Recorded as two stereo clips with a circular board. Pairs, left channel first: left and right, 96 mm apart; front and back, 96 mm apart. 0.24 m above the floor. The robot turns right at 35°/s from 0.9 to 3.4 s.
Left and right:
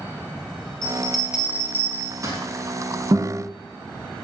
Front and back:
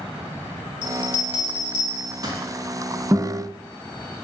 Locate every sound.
0.8 s a bell: 170° left, 0.8 m; by 2.4 s 135° right, 0.8 m
3.1 s a guitar: 125° right, 0.8 m; by 3.4 s 115° right, 0.8 m